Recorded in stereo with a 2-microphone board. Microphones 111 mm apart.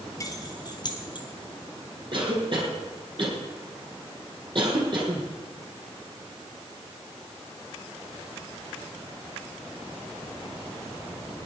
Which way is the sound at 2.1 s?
50° right (ahead or behind).